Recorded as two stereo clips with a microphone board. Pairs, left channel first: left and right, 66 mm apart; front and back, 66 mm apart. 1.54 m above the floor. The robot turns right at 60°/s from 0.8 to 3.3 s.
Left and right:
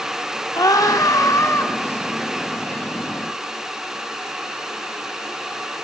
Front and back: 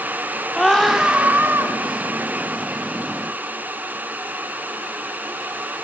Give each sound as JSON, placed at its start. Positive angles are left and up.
{"t": 0.5, "sound": "a scream", "azimuth_deg": 85, "distance_m": 4.0}